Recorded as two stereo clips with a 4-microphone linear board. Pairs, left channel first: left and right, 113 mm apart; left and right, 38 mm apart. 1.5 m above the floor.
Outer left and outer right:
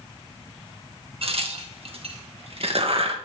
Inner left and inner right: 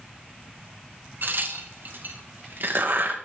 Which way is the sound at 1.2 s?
60° right (ahead or behind).